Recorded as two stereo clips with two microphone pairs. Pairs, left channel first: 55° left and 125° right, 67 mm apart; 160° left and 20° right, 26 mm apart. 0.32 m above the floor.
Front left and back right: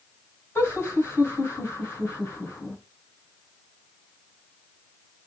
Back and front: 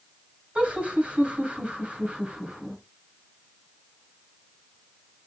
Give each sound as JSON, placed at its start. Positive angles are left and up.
{"t": 0.6, "sound": "laughter", "azimuth_deg": 5, "distance_m": 3.0}